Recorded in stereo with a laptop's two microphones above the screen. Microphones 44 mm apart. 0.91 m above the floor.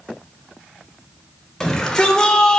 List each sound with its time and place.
1.6 s a shout: 10° left (ahead or behind), 4 m; by 2.6 s 20° left (ahead or behind), 2.5 m